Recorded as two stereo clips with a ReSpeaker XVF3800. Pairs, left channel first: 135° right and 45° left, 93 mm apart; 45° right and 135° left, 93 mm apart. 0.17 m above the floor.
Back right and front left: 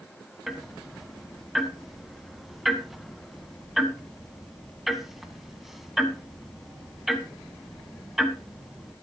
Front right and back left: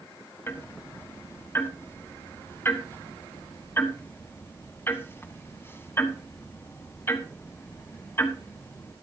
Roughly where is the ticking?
Ahead right.